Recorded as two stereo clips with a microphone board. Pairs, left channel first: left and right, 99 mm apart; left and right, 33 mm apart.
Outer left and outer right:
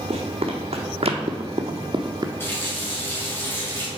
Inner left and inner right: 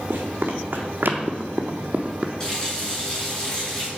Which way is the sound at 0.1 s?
75° right (ahead or behind).